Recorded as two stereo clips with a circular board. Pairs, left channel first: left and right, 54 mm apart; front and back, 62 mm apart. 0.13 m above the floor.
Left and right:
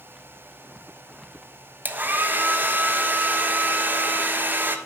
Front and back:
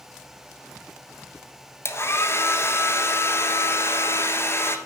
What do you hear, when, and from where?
1.9 s a hair dryer: 40° right, 1.1 m